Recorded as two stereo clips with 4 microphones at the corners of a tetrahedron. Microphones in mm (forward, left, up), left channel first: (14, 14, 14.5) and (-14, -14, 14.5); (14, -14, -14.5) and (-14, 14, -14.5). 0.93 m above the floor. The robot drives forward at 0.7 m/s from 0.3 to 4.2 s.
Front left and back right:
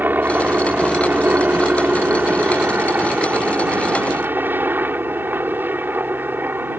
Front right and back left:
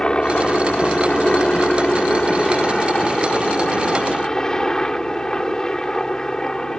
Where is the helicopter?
110° right; by 6.8 s 115° right.